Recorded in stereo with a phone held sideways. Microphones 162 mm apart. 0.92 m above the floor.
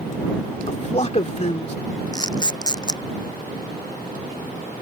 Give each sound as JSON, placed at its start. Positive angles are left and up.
{"t": 0.7, "sound": "a man speaking", "side_deg": 45}
{"t": 2.1, "sound": "a camera shutter", "side_deg": 25}